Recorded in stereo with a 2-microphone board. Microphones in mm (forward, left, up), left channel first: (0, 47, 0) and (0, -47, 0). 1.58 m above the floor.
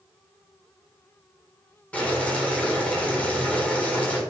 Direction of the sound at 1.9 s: 15° left (ahead or behind).